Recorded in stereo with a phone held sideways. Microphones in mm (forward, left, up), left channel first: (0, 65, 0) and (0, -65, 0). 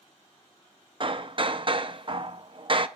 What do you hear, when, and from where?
1.0 s hammering: 40° right (ahead or behind), 0.6 m